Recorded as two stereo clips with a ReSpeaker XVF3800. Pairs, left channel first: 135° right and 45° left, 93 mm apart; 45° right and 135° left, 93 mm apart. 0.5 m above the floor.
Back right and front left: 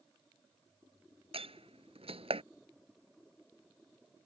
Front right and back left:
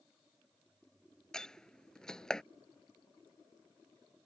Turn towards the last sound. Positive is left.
turn(degrees=40)